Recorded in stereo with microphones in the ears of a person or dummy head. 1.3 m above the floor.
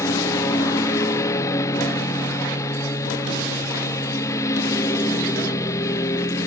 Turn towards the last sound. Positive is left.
turn(degrees=20)  # may be behind; listen again after turning